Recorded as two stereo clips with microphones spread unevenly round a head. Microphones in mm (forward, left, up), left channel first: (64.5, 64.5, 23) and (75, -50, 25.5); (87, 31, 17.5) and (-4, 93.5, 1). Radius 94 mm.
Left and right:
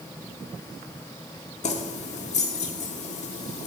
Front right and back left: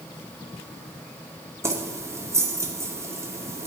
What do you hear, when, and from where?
1.6 s keys jangling: 80° left, 1.7 m